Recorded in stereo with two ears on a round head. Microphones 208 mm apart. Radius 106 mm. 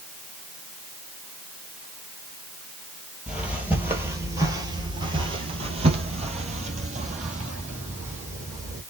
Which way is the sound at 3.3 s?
5° right (ahead or behind).